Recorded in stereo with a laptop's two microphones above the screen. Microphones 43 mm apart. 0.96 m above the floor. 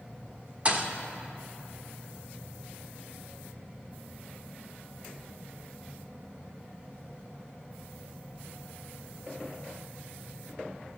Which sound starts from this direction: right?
A thud, at 0.7 s.